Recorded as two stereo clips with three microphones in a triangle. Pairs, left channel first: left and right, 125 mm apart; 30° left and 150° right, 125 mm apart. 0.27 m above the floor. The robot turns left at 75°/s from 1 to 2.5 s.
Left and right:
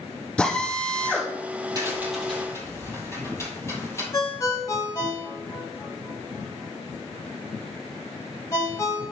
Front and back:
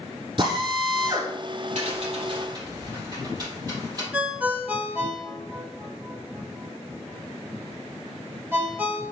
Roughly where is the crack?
Behind right.